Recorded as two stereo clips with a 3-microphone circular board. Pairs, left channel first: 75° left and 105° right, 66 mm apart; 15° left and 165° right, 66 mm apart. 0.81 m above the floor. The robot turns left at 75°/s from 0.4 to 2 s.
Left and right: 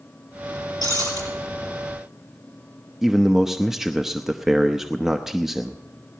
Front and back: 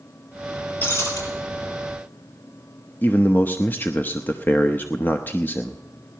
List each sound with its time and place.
0.8 s breaking glass: 75° left, 6 m; by 1.2 s 45° left, 6 m
3.0 s a man speaking: 20° right, 0.8 m